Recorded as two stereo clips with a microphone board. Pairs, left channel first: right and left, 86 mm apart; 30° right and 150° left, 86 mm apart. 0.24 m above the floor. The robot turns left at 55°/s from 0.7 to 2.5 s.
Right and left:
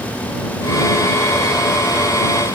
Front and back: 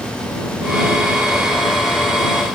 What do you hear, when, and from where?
Only background noise.